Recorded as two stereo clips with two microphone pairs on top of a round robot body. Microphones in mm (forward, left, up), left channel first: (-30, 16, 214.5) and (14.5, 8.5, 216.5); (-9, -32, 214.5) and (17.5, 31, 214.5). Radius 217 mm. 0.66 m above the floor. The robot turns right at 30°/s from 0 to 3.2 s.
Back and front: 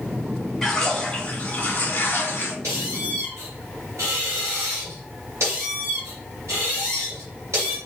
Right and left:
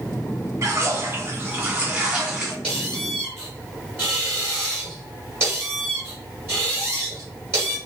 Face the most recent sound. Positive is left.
turn(degrees=10)